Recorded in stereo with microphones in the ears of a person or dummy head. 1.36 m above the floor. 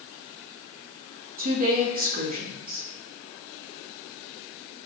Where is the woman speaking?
40° right (ahead or behind), 1.0 m.